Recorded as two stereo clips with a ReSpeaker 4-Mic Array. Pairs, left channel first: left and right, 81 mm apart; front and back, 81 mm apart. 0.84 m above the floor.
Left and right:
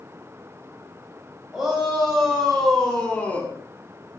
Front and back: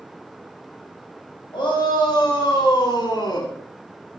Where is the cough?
I don't hear a cough.